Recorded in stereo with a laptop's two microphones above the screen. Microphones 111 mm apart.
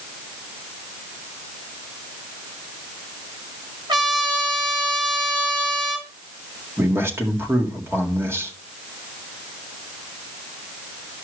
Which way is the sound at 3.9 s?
40° right (ahead or behind).